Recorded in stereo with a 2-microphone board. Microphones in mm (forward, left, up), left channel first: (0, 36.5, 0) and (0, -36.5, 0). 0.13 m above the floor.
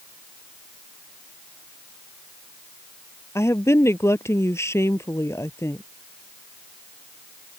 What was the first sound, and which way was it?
A woman speaking, 40° left (ahead or behind).